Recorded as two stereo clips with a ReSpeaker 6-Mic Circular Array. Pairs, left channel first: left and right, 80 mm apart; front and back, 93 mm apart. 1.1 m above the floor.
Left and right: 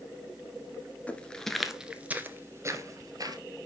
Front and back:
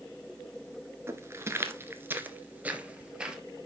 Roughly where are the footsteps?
Behind left.